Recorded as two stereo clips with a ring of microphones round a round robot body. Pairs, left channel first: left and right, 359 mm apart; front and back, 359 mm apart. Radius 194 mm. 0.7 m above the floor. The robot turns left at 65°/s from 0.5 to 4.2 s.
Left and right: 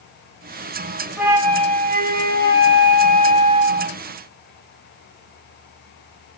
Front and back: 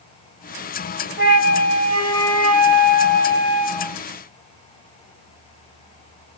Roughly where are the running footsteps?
No running footsteps in this recording.